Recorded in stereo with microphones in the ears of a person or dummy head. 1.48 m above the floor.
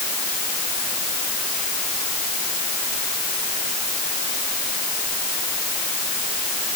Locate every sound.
Only background noise.